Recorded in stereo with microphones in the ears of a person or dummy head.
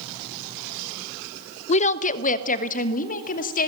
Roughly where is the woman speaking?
Left.